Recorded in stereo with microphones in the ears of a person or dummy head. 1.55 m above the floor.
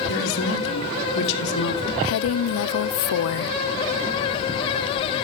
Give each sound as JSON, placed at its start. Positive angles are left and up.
{"t": 0.1, "sound": "a man speaking", "side_deg": 70, "distance_m": 3.0}
{"t": 2.0, "sound": "a woman speaking", "side_deg": 70, "distance_m": 0.5}